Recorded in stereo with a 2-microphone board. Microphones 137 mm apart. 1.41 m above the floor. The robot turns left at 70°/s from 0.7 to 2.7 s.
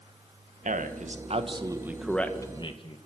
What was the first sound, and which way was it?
A man speaking, 85° right.